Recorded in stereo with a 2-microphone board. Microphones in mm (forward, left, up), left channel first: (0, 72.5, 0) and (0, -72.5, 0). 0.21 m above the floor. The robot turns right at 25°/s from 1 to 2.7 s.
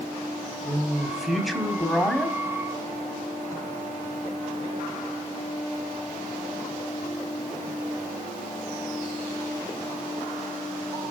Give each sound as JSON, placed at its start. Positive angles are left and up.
{"t": 0.6, "sound": "a man speaking", "side_deg": -5, "distance_m": 1.3}